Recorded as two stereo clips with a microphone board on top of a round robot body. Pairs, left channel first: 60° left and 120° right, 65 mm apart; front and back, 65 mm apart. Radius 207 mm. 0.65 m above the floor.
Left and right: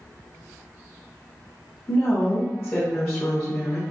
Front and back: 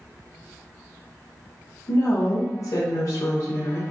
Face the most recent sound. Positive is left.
turn(degrees=5)